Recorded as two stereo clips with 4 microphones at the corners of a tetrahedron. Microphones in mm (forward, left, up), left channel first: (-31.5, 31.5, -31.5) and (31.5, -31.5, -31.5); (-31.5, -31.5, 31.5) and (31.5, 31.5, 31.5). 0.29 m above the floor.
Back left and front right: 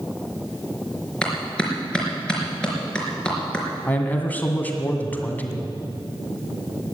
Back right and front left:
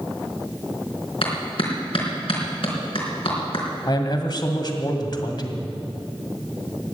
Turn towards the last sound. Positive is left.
turn(degrees=-160)